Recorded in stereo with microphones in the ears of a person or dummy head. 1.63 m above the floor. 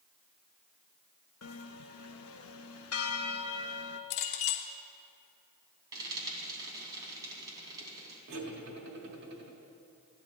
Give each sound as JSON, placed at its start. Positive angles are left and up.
{"t": 1.4, "sound": "a bell", "side_deg": 70, "distance_m": 0.5}
{"t": 4.1, "sound": "a clink", "side_deg": 60, "distance_m": 1.2}
{"t": 5.9, "sound": "frying", "side_deg": -20, "distance_m": 3.0}
{"t": 8.3, "sound": "cutlery clinking", "side_deg": -60, "distance_m": 1.8}